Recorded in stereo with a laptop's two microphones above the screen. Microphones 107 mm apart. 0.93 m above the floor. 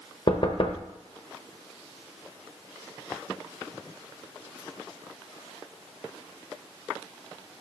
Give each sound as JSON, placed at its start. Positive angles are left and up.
{"t": 0.3, "sound": "knocking", "side_deg": 50, "distance_m": 0.7}